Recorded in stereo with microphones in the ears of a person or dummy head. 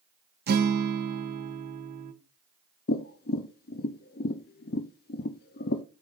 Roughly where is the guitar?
Right.